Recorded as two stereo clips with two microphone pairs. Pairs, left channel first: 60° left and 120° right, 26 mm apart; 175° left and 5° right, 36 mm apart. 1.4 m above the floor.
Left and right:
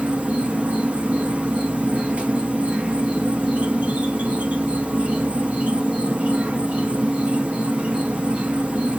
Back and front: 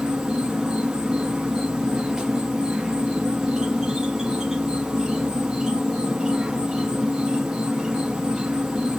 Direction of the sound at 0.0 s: 85° right.